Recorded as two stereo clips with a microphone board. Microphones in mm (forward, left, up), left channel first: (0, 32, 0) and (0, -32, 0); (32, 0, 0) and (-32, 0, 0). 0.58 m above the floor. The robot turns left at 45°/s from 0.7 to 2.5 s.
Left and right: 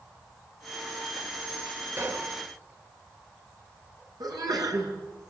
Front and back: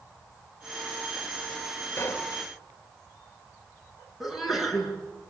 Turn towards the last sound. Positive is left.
turn(degrees=-95)